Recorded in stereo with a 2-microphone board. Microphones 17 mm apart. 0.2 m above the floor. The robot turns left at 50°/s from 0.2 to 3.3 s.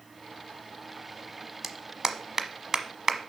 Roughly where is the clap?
Right.